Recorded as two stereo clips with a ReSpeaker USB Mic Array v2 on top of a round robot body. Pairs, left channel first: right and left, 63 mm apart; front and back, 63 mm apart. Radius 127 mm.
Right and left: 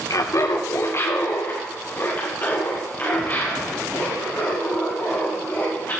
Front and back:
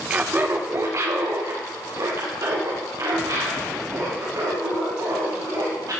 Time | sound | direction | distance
0.1 | laughter | 110° right | 0.9 m